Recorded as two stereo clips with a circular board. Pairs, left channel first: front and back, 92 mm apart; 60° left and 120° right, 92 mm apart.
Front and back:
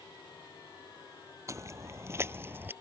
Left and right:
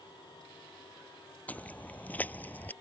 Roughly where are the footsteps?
Behind left.